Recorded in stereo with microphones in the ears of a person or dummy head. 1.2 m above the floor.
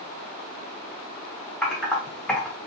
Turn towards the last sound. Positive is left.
turn(degrees=5)  # may be behind; listen again after turning